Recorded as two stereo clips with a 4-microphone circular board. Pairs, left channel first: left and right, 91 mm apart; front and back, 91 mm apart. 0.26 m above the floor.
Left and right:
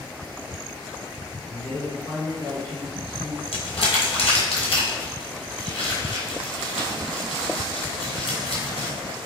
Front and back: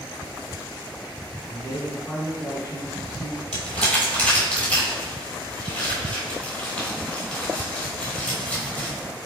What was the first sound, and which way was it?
A man speaking, 45° left.